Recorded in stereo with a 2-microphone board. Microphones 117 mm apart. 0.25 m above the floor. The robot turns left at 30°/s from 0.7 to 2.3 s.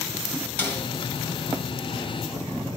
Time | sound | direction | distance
0.6 | a snare drum | 15° left (ahead or behind) | 2.5 m